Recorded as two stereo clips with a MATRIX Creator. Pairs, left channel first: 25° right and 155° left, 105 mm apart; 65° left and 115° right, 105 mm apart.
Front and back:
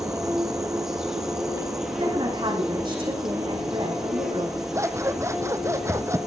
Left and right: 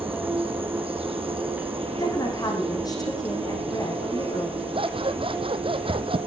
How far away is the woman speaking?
About 5 m.